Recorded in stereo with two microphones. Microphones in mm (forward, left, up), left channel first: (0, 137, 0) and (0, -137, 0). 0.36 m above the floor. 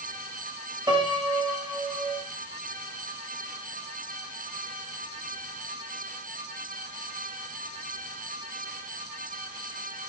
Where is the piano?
15° right (ahead or behind), 5.5 m.